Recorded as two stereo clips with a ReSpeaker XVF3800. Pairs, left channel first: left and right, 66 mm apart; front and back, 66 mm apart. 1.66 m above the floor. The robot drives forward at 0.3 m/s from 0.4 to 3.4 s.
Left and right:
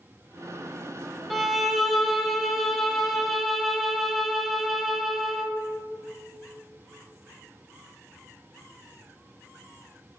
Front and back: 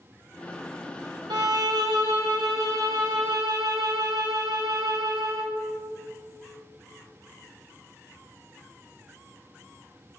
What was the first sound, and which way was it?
A violin, straight behind.